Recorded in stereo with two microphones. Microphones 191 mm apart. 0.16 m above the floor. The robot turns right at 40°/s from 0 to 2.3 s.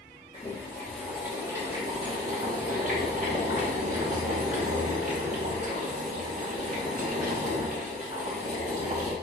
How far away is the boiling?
About 4 m.